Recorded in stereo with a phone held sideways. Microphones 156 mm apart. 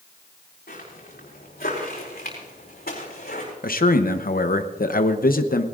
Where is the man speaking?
65° left (ahead or behind), 0.7 m.